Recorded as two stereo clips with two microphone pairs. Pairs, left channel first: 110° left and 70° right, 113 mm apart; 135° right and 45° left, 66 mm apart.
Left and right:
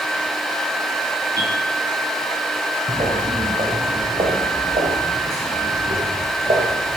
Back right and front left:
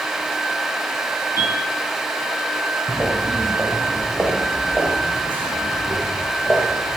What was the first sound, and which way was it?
A bell, 120° right.